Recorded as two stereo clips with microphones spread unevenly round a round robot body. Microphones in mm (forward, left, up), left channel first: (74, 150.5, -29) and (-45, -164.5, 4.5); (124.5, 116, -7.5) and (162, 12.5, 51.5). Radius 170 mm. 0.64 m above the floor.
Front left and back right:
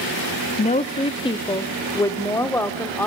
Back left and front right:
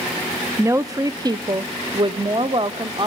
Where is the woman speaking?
30° left, 0.8 m; by 3.1 s 15° right, 1.7 m.